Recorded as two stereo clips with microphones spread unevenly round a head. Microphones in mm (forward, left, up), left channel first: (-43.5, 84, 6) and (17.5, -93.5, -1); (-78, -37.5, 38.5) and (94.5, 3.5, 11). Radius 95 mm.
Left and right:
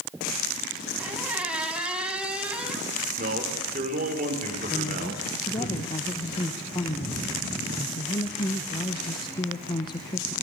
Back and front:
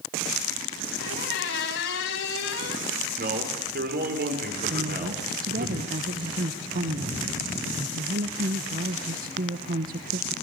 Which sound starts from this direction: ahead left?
A woman speaking, at 4.7 s.